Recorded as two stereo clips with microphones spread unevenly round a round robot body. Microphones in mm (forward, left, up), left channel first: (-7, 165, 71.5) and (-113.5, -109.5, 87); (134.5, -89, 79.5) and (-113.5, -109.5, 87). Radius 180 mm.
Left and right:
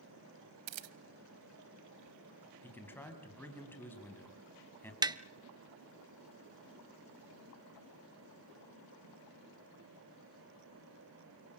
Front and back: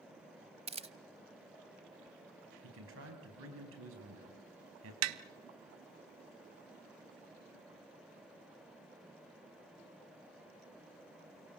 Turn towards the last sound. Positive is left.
turn(degrees=170)